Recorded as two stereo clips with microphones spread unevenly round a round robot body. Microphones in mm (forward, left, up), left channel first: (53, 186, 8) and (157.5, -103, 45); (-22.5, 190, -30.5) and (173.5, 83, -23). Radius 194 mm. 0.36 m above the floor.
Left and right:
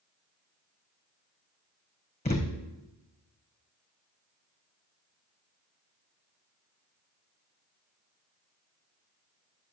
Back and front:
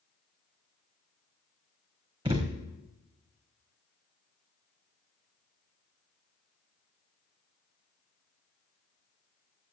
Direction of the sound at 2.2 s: 40° left.